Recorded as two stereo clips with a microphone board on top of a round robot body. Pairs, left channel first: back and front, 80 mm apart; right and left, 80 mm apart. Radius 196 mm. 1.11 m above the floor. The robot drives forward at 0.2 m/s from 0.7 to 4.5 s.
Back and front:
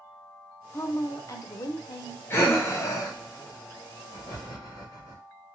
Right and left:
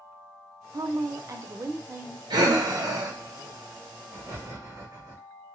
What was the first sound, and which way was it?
A woman speaking, 130° left.